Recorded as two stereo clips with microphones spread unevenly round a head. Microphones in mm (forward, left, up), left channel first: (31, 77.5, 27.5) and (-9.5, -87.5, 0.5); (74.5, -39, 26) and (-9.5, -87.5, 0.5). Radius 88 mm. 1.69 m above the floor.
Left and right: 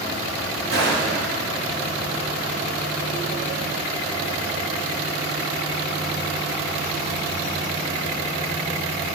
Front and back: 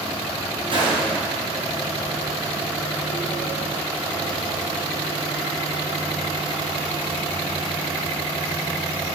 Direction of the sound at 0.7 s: 120° right.